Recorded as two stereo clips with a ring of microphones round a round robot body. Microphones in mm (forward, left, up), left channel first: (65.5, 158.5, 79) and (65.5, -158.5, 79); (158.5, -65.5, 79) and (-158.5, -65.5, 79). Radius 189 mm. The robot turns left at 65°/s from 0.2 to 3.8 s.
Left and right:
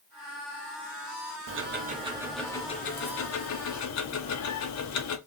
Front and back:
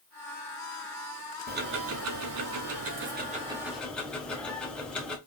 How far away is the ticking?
About 0.9 m.